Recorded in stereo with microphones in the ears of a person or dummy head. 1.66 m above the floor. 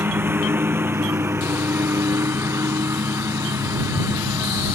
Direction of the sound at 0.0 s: 20° right (ahead or behind).